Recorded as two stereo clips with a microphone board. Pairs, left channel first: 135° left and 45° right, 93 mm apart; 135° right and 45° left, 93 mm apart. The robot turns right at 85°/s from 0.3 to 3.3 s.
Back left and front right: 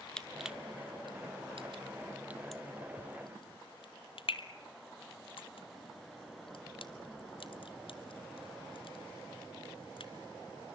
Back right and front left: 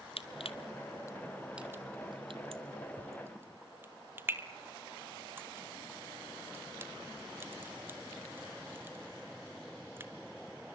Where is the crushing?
140° right, 1.1 m; by 10.1 s 115° left, 1.1 m.